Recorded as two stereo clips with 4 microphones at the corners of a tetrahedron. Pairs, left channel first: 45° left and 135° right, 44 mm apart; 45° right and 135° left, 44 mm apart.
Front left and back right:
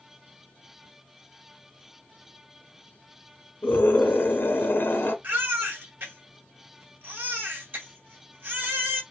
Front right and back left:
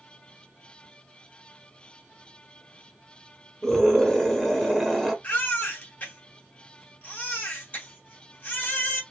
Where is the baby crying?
95° right, 2.5 m.